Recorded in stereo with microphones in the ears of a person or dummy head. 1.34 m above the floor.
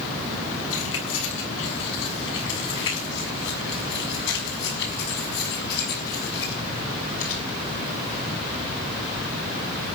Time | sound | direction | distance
0.7 | keys jangling | 75° left (ahead or behind) | 7.5 m